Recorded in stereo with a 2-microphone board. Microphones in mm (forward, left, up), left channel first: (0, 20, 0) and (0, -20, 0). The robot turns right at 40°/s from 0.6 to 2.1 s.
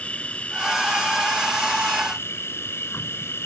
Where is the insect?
35° left; by 3.5 s 95° left.